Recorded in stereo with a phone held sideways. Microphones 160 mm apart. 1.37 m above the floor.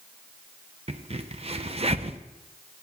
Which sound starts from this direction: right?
A crack, at 0.9 s.